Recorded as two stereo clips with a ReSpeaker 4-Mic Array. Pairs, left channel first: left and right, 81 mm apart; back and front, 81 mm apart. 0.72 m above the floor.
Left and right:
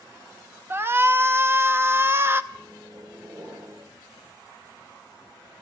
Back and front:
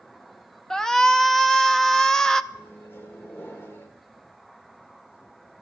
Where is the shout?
105° right, 0.6 m.